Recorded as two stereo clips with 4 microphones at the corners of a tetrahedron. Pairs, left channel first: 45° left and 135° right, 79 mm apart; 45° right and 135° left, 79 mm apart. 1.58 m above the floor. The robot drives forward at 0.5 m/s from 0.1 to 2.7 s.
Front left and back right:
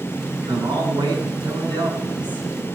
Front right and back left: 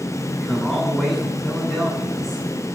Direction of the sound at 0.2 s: 130° right.